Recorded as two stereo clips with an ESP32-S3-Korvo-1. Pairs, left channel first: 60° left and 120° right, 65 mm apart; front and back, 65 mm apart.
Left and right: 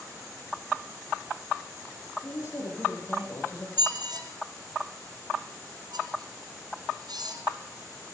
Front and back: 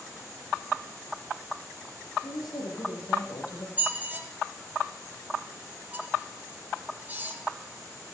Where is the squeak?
115° right, 4 m.